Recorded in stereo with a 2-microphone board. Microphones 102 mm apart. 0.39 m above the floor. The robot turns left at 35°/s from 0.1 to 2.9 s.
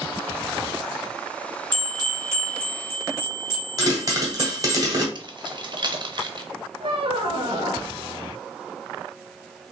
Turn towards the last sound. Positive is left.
turn(degrees=-60)  # may be behind; listen again after turning